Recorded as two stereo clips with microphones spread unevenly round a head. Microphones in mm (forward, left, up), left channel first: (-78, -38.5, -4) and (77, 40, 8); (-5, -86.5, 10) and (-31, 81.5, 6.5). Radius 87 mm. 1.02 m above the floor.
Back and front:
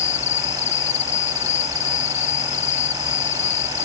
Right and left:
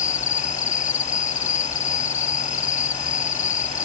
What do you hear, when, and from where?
0.0 s an insect: 130° right